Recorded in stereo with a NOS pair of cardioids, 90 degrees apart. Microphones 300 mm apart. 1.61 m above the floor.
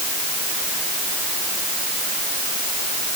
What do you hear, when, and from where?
Only background noise.